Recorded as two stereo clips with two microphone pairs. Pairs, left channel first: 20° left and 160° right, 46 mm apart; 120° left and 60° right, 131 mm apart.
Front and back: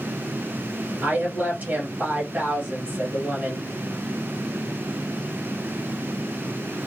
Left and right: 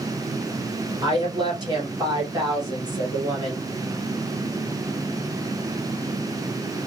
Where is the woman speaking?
110° right, 2.5 m.